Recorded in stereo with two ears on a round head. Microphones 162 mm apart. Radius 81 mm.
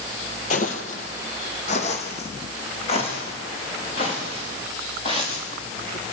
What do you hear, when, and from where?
0.5 s footsteps: 45° left (ahead or behind), 2.5 m; by 6.1 s 30° left (ahead or behind), 10 m